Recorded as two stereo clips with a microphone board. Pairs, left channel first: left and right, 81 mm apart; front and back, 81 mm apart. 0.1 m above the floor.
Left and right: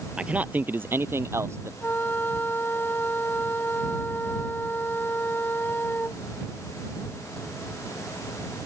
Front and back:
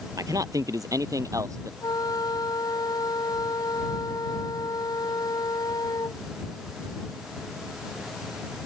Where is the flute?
25° left.